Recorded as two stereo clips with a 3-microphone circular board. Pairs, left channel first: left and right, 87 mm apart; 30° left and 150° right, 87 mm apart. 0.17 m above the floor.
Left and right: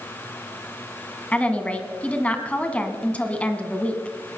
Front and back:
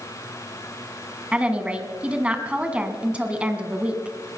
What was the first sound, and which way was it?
A woman speaking, 150° left.